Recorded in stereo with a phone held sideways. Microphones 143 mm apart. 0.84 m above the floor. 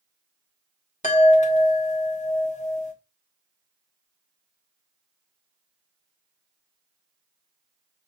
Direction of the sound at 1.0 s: 55° left (ahead or behind).